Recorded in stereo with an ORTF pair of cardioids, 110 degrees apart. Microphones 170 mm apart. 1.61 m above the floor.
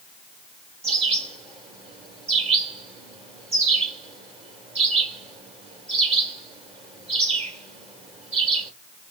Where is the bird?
35° right, 2.5 m.